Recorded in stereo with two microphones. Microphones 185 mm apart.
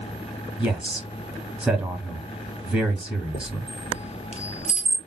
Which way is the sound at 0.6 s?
5° right (ahead or behind).